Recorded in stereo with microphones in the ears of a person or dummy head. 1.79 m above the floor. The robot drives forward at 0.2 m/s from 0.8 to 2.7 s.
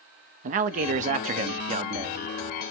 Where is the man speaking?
40° right (ahead or behind), 0.6 m; by 2.2 s 30° right (ahead or behind), 0.9 m.